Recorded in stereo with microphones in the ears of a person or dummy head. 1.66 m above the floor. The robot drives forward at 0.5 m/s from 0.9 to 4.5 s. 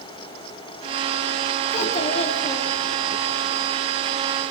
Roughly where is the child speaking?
Left.